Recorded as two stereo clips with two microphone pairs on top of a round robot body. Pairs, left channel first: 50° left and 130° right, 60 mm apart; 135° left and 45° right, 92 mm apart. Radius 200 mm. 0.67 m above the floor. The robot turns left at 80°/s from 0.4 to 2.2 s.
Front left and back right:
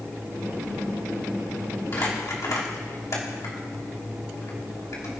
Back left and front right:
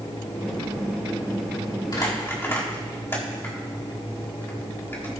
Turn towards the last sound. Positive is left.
turn(degrees=75)